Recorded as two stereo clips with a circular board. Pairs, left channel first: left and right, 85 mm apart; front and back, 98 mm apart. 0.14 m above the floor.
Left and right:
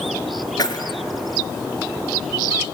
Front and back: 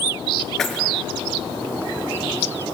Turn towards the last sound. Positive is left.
turn(degrees=85)